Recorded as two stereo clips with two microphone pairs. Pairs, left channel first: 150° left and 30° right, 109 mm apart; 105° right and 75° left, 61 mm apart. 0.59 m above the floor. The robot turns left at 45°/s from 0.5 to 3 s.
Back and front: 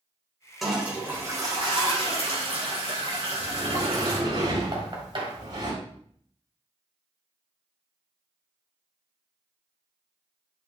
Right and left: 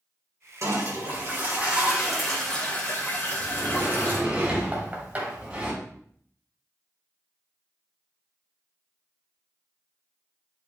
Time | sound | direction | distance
0.6 | a toilet flushing | 60° left | 2.5 m
3.4 | a sliding door | straight ahead | 4.5 m
4.7 | knocking | 10° left | 2 m